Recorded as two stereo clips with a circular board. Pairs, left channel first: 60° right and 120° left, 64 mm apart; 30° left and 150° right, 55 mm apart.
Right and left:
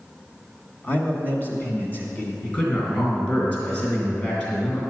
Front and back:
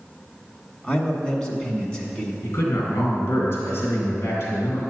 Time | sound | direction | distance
0.8 | a man speaking | 35° right | 1.4 m
2.4 | a man speaking | 5° right | 3 m